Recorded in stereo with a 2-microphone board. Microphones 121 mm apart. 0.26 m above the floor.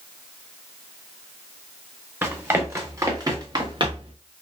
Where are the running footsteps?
15° right (ahead or behind), 2 m; by 4.2 s 50° right (ahead or behind), 1.1 m.